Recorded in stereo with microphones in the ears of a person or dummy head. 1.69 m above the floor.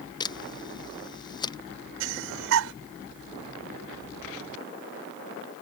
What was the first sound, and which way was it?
A camera shutter, 25° left (ahead or behind).